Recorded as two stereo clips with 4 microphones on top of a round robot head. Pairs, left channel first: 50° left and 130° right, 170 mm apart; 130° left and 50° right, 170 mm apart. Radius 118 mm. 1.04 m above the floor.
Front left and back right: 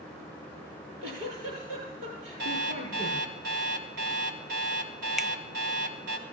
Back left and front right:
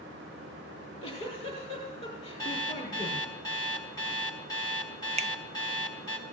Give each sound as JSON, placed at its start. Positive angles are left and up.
{"t": 0.7, "sound": "a giggle", "azimuth_deg": -165, "distance_m": 6.5}
{"t": 2.4, "sound": "an alarm clock", "azimuth_deg": -160, "distance_m": 1.4}
{"t": 5.2, "sound": "a finger snap", "azimuth_deg": -40, "distance_m": 0.5}